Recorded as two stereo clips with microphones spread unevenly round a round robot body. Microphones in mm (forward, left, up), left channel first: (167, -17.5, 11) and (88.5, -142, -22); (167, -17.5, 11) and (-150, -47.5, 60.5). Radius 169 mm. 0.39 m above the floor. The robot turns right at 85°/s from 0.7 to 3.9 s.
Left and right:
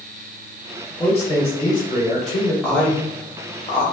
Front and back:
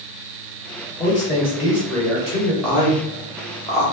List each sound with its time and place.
1.0 s a man speaking: 70° left, 1.9 m; by 2.5 s 155° right, 1.9 m
2.6 s a man speaking: 55° right, 0.8 m; by 3.9 s 50° left, 0.8 m